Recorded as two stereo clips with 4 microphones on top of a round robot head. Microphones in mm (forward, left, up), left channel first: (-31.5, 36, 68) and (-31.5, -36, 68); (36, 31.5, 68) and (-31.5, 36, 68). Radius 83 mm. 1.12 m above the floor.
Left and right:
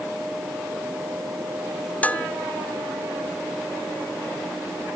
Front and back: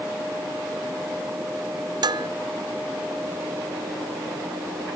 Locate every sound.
2.0 s dishes clattering: 160° left